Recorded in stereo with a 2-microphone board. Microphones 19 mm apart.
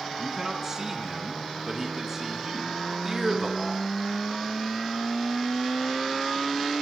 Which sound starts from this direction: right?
A man speaking, at 0.2 s.